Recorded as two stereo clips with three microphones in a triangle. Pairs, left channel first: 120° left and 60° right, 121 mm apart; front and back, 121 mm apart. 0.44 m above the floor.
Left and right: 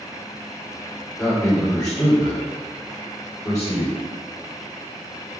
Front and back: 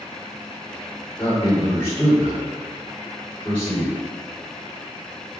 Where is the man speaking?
65° left, 1.7 m.